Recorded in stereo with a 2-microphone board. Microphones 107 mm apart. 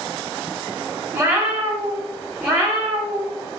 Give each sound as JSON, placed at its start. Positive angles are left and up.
{"t": 1.1, "sound": "a cat meowing", "side_deg": -15, "distance_m": 0.7}